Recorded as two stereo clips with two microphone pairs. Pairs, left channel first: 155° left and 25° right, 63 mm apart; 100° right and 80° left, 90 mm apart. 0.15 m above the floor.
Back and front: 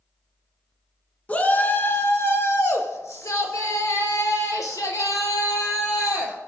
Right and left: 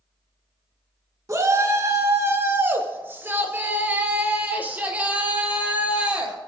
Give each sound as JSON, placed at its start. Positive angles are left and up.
{"t": 1.3, "sound": "a shout", "azimuth_deg": 105, "distance_m": 1.6}